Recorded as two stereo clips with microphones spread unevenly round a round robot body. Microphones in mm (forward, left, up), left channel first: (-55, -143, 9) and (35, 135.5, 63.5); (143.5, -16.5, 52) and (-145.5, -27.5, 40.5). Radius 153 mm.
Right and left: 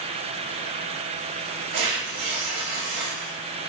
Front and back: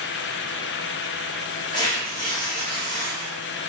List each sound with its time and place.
1.7 s tearing paper: 80° left, 1.7 m